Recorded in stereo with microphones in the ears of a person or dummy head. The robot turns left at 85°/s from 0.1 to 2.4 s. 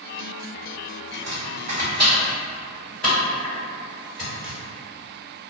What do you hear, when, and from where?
1.1 s chopping: 65° right (ahead or behind), 1.3 m; by 4.6 s 10° left (ahead or behind), 1.3 m